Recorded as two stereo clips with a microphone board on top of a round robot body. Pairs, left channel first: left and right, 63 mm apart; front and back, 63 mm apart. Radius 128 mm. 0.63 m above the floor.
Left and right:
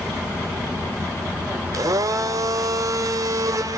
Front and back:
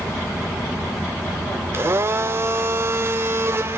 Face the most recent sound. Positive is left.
turn(degrees=-125)